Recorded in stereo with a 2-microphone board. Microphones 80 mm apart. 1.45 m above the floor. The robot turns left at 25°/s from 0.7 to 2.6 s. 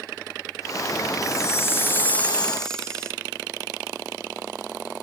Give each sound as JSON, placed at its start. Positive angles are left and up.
{"t": 1.2, "sound": "a chime", "azimuth_deg": 45, "distance_m": 0.5}